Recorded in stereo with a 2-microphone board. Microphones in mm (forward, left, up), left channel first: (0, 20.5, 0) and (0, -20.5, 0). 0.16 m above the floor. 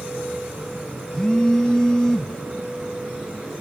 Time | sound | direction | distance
1.1 | a phone buzzing | 20° left (ahead or behind) | 0.7 m